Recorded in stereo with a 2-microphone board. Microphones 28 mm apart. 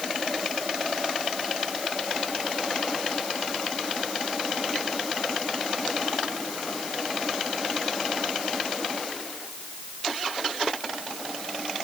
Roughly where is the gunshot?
I don't hear a gunshot.